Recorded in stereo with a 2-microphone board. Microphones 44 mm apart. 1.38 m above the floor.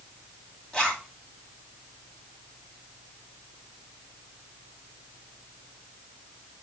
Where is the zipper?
15° left (ahead or behind), 2.0 m.